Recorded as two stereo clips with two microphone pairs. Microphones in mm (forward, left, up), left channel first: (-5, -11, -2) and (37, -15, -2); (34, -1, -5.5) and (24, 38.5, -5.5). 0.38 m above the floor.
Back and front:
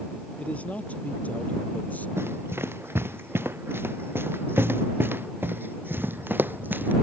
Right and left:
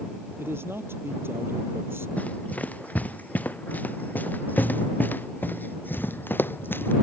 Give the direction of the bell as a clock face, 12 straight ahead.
No bell in this recording.